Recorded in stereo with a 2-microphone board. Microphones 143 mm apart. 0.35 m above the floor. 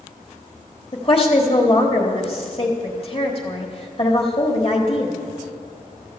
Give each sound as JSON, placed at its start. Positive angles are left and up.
{"t": 0.9, "sound": "a woman speaking", "side_deg": 40, "distance_m": 1.2}